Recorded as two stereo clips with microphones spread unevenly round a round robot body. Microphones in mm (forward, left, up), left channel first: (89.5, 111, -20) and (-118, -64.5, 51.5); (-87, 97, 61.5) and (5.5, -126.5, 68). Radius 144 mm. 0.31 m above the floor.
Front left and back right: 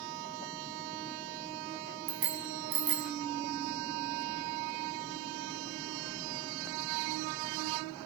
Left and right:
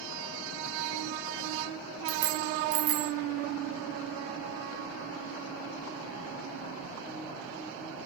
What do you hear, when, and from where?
2.1 s a bicycle bell: 85° right, 2 m